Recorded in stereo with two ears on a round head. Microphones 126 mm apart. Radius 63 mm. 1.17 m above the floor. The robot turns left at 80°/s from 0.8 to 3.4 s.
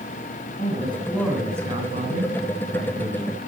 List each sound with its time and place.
0.6 s a man speaking: 45° left, 8.5 m; by 3.5 s 165° right, 8.5 m